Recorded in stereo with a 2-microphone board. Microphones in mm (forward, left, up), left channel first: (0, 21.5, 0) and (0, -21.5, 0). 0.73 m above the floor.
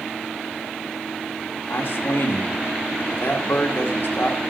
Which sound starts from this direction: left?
A man speaking, at 1.7 s.